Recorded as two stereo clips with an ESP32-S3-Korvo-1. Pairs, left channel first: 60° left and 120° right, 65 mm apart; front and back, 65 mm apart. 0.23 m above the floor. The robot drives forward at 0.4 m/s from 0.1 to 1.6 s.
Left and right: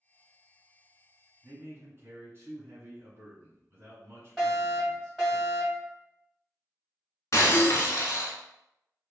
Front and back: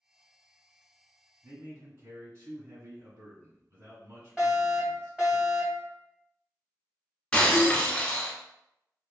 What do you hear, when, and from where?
1.4 s a man speaking: 155° right, 1.4 m; by 5.4 s 160° right, 1.5 m
4.4 s a fire alarm: 145° left, 1.9 m
7.3 s breaking glass: 75° left, 0.9 m